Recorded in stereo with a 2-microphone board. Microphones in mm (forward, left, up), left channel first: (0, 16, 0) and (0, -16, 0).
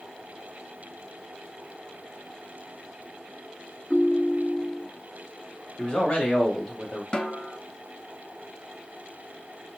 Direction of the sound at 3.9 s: 20° left (ahead or behind).